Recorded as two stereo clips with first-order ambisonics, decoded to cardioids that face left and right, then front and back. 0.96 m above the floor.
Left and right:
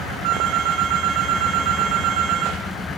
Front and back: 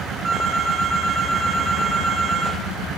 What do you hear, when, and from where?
0.2 s a phone ringing: 100° right, 6.5 m